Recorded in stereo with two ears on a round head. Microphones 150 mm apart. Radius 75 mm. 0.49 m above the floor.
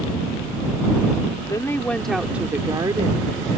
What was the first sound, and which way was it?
A woman speaking, 20° left (ahead or behind).